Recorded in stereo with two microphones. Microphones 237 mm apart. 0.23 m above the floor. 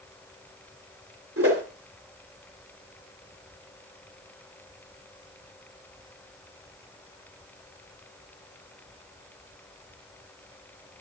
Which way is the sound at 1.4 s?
70° right (ahead or behind).